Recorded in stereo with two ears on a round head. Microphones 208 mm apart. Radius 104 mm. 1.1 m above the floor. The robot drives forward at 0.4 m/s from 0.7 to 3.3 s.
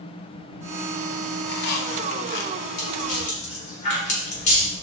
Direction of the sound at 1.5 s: 45° left (ahead or behind).